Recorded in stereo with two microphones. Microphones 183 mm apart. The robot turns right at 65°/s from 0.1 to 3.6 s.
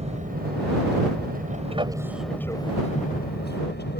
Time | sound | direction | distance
0.0 | an aircraft | 140° right | ?